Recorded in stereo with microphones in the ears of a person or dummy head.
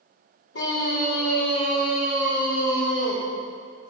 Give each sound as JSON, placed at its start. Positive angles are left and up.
{"t": 0.5, "sound": "a scream", "side_deg": 70, "distance_m": 2.5}